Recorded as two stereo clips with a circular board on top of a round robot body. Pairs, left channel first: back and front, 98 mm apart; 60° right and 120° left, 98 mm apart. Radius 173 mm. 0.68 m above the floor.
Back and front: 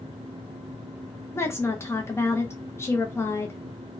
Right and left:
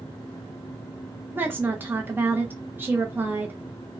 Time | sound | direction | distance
1.4 | a woman speaking | 165° left | 0.7 m